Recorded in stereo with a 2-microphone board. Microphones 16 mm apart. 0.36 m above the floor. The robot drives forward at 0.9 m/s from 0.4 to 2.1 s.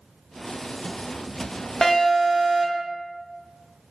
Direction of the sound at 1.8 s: 25° left (ahead or behind).